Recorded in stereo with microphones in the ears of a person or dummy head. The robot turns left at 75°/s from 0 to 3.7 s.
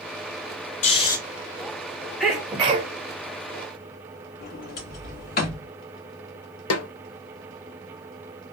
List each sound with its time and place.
0.8 s snoring: 40° left (ahead or behind), 0.7 m; by 1.2 s 15° left (ahead or behind), 0.7 m
2.2 s a sneeze: 5° left, 1.1 m; by 2.9 s 50° right, 1.1 m
4.4 s a sliding door: 55° left (ahead or behind), 1.4 m
6.7 s a snare drum: 75° left (ahead or behind), 0.5 m